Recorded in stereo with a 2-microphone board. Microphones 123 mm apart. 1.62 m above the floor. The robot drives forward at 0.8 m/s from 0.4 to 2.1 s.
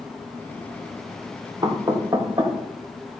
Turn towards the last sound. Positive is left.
turn(degrees=-25)  # may be behind; listen again after turning